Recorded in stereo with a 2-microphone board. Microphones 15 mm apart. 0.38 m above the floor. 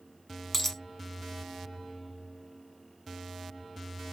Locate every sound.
0.5 s a dropped coin: 20° left (ahead or behind), 0.5 m